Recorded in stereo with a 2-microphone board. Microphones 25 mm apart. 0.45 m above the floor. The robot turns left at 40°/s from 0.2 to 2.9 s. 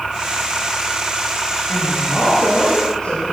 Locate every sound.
1.7 s a woman speaking: 75° left, 6 m; by 3.3 s 25° left, 6 m